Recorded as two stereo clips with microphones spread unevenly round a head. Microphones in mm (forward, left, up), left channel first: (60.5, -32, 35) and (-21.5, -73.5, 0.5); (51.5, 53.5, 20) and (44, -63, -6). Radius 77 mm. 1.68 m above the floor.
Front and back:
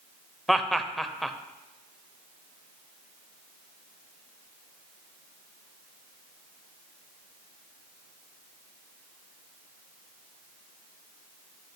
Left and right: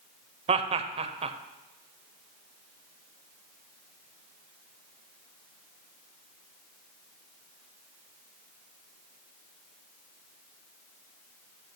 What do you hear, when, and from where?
0.5 s laughter: 55° right, 0.7 m